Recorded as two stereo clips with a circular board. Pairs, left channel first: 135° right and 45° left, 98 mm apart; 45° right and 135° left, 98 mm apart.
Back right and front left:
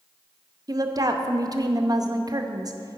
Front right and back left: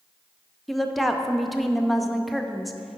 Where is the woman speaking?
45° left, 0.5 m.